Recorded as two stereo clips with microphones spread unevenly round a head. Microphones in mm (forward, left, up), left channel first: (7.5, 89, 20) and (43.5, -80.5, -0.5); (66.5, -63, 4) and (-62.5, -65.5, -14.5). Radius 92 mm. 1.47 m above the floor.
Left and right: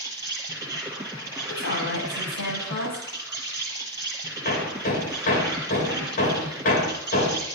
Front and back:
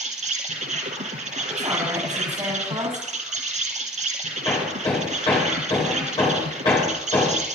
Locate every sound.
0.0 s an insect: 155° right, 3 m
1.5 s a woman speaking: 115° left, 8.5 m
4.5 s hammering: 65° left, 4.5 m